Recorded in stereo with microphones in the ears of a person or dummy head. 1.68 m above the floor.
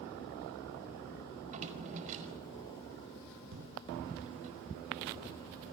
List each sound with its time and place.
1.4 s a drawer: 40° right (ahead or behind), 5 m
3.5 s a thud: 70° right (ahead or behind), 5.5 m